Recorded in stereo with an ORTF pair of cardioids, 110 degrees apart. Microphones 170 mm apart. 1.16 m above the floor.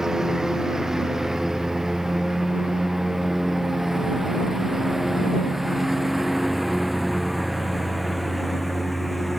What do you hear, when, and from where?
0.0 s a lawn mower: 5° right; by 9.4 s straight ahead